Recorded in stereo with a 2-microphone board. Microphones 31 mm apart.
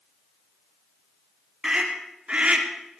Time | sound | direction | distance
1.6 | a scream | 25° right (ahead or behind) | 4 m